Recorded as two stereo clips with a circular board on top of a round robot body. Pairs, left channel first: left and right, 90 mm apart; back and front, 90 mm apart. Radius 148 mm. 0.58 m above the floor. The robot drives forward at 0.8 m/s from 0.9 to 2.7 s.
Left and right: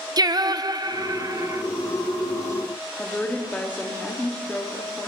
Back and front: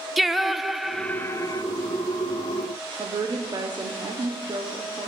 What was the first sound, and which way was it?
Singing, 90° right.